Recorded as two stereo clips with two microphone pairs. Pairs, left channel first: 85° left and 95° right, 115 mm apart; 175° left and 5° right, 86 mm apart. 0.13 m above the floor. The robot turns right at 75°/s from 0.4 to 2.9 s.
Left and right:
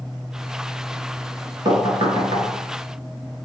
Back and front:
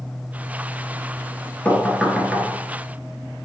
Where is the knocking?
125° right, 1.2 m; by 2.5 s 60° right, 1.2 m.